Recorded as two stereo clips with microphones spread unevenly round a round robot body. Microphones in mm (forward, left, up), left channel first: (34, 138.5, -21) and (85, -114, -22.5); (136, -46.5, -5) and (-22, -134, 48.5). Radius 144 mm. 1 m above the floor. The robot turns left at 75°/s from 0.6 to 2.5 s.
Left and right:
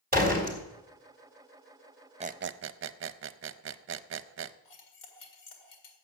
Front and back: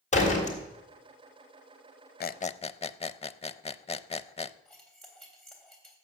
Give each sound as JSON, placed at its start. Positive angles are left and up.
{"t": 0.1, "sound": "a door slam", "azimuth_deg": -25, "distance_m": 3.5}
{"t": 2.2, "sound": "a squeak", "azimuth_deg": -10, "distance_m": 0.6}
{"t": 4.7, "sound": "cutlery clinking", "azimuth_deg": 115, "distance_m": 2.0}